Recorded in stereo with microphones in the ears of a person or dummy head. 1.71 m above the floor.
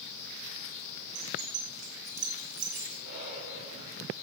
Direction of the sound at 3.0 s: 65° right (ahead or behind).